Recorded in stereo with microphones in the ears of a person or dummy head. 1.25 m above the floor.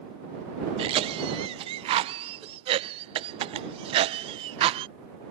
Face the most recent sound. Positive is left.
turn(degrees=-30)  # may be behind; listen again after turning